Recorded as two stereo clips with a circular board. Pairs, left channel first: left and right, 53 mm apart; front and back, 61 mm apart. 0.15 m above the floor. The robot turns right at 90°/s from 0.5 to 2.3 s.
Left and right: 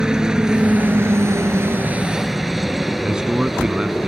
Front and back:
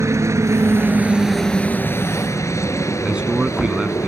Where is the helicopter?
165° right; by 4.1 s 5° right.